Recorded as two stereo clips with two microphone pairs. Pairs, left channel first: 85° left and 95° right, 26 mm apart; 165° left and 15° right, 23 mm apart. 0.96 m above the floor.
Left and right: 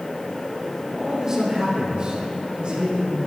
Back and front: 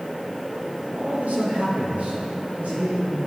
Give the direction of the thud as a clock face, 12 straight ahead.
I don't hear a thud.